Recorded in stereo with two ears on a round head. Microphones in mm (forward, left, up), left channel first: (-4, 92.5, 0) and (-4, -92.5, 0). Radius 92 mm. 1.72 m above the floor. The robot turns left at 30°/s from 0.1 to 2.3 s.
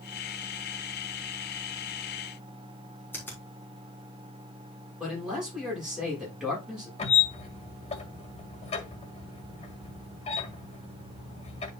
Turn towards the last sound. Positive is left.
turn(degrees=30)  # may be behind; listen again after turning